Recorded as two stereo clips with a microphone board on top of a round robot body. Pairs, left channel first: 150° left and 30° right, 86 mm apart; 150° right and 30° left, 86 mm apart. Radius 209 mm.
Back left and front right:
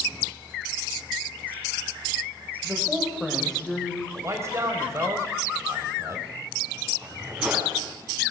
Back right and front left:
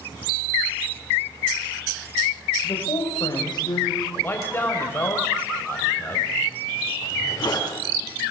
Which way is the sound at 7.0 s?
110° right.